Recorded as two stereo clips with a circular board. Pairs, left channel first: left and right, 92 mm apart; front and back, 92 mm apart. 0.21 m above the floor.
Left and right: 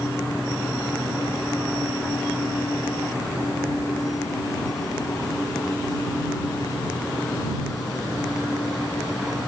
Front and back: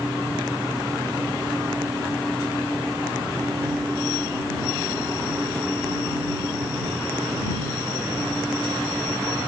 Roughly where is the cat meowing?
I don't hear a cat meowing.